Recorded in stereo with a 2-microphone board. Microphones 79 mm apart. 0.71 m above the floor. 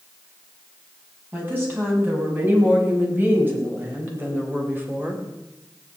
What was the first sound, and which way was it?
A woman speaking, 25° right (ahead or behind).